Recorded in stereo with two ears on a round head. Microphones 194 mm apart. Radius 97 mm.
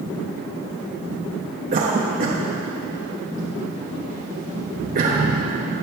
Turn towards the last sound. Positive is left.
turn(degrees=-40)  # may be behind; listen again after turning